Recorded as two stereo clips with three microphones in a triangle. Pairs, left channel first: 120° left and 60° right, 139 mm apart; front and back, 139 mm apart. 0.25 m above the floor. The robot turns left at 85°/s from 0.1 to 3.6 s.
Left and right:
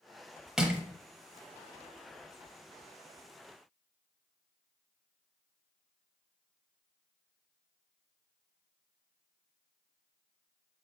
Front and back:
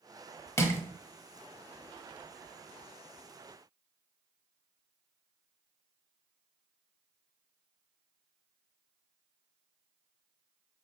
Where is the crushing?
20° left, 0.8 m; by 0.8 s straight ahead, 0.8 m.